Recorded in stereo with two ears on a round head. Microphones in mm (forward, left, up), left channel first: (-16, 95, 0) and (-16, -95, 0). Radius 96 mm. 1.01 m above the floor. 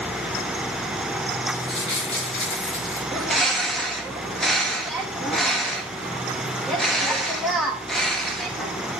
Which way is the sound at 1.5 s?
60° left (ahead or behind).